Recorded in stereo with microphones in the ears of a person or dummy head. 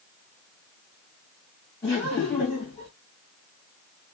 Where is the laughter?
25° left (ahead or behind), 1.5 m.